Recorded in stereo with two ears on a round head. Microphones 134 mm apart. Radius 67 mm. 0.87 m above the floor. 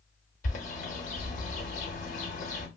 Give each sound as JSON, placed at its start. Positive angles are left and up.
{"t": 0.4, "sound": "a bird", "side_deg": 55, "distance_m": 0.8}